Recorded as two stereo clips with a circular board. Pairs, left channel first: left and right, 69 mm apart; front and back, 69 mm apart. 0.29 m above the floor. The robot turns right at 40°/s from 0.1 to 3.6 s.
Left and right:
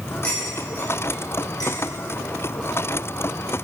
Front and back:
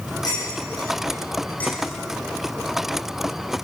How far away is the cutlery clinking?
About 8 m.